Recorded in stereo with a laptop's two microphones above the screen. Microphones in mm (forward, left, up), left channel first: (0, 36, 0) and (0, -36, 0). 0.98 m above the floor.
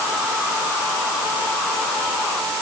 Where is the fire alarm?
No fire alarm in this recording.